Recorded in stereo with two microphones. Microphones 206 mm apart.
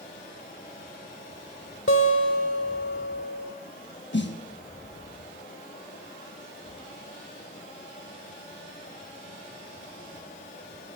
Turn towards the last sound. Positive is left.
turn(degrees=60)  # may be behind; listen again after turning